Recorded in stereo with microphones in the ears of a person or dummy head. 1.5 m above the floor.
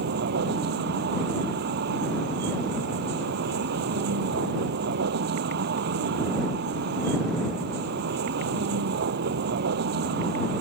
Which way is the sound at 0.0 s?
60° right (ahead or behind).